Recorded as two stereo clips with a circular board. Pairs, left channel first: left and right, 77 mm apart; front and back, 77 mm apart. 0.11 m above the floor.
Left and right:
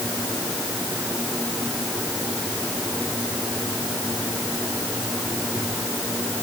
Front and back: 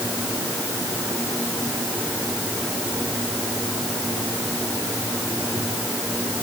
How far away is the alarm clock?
No alarm clock in this recording.